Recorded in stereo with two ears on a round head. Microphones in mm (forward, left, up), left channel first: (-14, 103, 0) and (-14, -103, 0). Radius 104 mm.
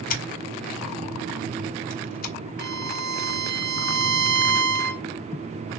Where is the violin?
50° right (ahead or behind), 0.7 m.